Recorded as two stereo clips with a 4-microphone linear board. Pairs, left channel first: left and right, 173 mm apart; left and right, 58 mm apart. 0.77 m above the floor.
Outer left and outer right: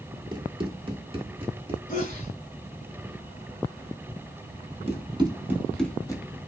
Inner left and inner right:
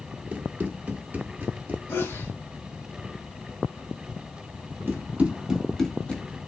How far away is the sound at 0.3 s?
About 0.8 m.